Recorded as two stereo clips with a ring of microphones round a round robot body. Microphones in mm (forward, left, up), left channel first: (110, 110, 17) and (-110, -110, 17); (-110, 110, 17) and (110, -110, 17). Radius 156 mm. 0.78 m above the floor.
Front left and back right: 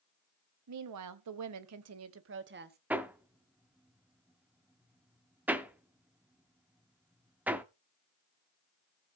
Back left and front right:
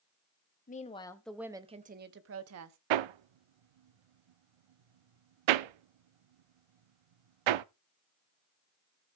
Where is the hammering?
50° right, 0.6 m.